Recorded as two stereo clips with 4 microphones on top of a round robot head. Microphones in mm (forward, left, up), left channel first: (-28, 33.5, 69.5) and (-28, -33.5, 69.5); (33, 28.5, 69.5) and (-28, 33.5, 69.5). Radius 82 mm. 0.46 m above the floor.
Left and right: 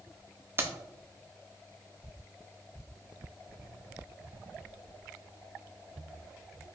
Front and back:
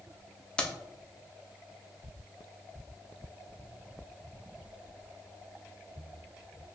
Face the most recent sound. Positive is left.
turn(degrees=-70)